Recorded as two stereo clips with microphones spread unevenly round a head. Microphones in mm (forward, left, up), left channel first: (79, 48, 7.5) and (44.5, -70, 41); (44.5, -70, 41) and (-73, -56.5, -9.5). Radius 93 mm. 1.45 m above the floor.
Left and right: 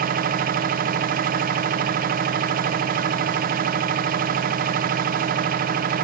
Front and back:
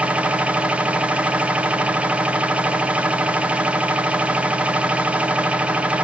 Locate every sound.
0.0 s a machine running: 105° right, 0.8 m